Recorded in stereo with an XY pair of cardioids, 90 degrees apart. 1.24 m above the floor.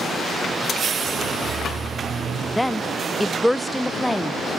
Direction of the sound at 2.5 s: 5° left.